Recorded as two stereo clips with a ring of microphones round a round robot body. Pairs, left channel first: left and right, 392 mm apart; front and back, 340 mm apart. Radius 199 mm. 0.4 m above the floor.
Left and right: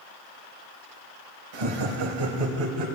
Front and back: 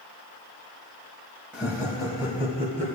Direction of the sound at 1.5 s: 95° right.